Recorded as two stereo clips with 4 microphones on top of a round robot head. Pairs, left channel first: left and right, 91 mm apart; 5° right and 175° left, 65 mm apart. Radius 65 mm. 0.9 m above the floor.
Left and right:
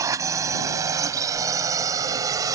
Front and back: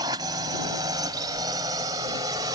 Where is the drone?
145° right; by 2.5 s 140° right.